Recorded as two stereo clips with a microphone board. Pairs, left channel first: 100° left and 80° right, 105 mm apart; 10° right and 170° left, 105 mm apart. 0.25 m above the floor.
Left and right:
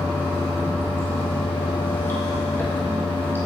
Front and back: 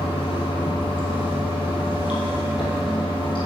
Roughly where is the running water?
Ahead left.